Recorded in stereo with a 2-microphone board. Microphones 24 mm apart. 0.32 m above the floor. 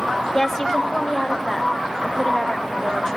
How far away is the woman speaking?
About 0.9 m.